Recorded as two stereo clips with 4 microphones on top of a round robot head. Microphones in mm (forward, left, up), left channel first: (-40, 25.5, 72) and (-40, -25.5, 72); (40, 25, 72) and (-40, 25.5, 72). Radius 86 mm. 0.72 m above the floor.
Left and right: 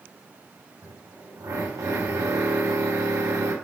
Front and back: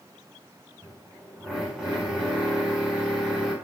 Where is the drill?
95° right, 7 m.